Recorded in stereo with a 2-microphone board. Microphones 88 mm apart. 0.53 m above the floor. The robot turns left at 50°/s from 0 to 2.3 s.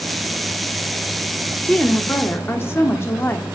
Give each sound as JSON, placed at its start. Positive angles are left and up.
{"t": 1.6, "sound": "a woman speaking", "azimuth_deg": 165, "distance_m": 0.9}